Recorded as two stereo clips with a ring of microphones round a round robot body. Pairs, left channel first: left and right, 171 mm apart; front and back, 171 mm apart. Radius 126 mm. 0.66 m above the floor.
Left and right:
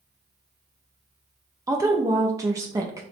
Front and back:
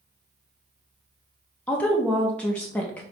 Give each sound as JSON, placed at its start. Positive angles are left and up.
{"t": 1.7, "sound": "a woman speaking", "azimuth_deg": -65, "distance_m": 0.7}